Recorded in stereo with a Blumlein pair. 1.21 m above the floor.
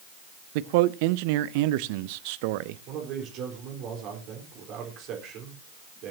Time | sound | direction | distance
0.6 | a man speaking | 45° right | 0.6 m
2.9 | a man speaking | 35° right | 4.5 m